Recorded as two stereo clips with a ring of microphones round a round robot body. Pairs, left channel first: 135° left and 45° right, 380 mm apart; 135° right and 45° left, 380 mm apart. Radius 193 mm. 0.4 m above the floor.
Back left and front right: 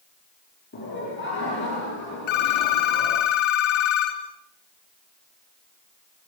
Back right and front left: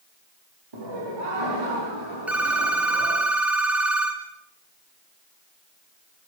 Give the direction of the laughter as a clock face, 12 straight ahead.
10 o'clock.